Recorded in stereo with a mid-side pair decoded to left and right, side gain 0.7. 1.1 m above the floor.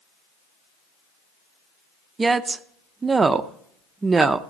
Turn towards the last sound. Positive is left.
turn(degrees=-20)